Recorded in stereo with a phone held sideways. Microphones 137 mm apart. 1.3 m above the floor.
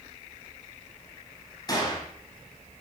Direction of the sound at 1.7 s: 30° left (ahead or behind).